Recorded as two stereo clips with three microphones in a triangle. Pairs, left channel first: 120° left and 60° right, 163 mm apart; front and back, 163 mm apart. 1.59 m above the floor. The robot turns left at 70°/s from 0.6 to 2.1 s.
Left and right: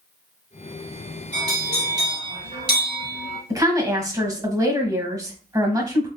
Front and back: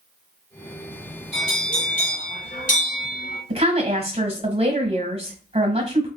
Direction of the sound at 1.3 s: 40° left.